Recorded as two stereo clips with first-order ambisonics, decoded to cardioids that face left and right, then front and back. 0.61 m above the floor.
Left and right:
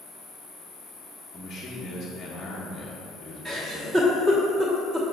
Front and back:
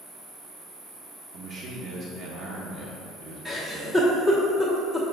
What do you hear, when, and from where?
0.0 s an insect: 135° left, 2.0 m
1.3 s a man speaking: 170° left, 0.7 m
3.5 s a giggle: 120° right, 1.1 m